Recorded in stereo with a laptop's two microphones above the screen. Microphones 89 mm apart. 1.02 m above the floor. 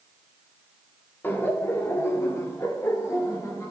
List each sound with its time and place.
1.2 s laughter: 25° left (ahead or behind), 1.8 m; by 3.7 s 35° left (ahead or behind), 3 m